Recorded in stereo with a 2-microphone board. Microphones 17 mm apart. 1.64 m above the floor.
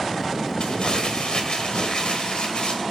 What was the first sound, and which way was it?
Crumpling, 60° left (ahead or behind).